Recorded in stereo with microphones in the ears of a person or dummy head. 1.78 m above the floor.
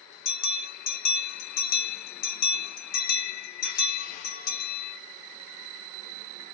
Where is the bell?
55° left (ahead or behind), 1.3 m.